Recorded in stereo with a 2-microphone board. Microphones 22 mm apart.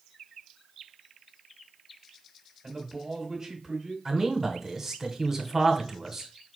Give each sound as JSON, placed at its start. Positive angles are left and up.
{"t": 2.6, "sound": "a man speaking", "side_deg": -10, "distance_m": 1.6}
{"t": 4.0, "sound": "a man speaking", "side_deg": -15, "distance_m": 1.0}